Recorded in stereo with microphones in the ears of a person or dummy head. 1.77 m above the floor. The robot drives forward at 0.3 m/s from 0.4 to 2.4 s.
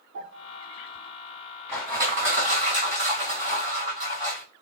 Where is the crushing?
15° right (ahead or behind), 2.5 m.